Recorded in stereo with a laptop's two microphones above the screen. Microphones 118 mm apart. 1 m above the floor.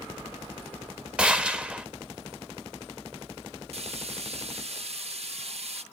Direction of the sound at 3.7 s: 60° right (ahead or behind).